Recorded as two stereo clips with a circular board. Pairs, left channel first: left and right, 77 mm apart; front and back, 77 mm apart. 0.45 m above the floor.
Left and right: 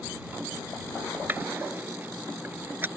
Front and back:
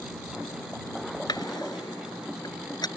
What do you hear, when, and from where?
1.3 s a drawer: 25° right